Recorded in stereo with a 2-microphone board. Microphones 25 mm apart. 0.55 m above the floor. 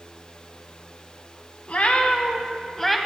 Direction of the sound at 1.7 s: 60° left (ahead or behind).